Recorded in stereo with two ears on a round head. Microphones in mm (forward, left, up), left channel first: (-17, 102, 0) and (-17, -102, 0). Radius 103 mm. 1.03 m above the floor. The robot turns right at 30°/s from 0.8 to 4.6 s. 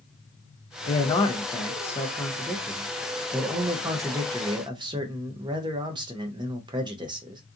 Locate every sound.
0.9 s a man speaking: 20° left (ahead or behind), 0.5 m; by 7.4 s 20° right (ahead or behind), 0.5 m